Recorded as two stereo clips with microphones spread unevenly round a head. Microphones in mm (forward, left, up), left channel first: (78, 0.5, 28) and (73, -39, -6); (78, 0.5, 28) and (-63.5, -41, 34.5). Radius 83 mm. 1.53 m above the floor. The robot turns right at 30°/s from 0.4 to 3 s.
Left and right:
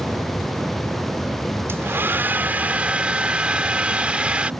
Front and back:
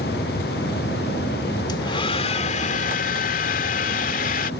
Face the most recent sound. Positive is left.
turn(degrees=-5)